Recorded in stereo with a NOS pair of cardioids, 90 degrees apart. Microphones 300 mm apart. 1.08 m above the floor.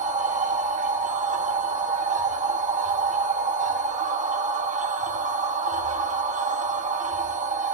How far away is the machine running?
About 1.6 m.